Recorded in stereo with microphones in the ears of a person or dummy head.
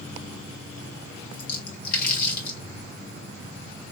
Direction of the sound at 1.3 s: 55° left (ahead or behind).